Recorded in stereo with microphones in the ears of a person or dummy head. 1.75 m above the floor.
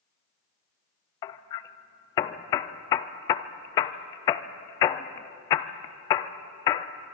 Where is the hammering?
20° left (ahead or behind), 0.5 m.